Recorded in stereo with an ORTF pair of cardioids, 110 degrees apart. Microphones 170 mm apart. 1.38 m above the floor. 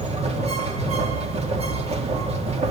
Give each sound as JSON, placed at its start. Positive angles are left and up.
{"t": 0.0, "sound": "a machine running", "azimuth_deg": -40, "distance_m": 3.0}